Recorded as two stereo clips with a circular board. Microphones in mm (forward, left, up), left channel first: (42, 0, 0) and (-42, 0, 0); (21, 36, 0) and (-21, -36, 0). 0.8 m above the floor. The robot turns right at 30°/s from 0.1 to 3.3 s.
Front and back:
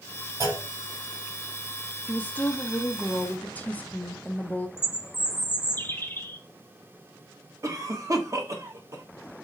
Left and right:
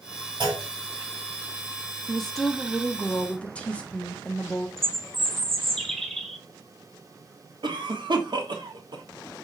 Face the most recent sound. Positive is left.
turn(degrees=-135)